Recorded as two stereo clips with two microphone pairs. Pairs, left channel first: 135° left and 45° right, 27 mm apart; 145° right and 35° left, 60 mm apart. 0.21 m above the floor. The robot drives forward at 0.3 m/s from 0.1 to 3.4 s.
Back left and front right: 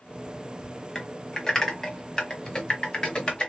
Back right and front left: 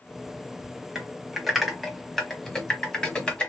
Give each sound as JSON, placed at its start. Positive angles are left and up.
{"t": 0.9, "sound": "typing on a keyboard", "azimuth_deg": 100, "distance_m": 1.4}